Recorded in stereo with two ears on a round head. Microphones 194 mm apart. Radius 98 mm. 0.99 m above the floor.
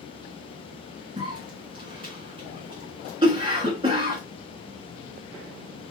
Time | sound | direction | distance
1.2 | a cough | 20° right (ahead or behind) | 2 m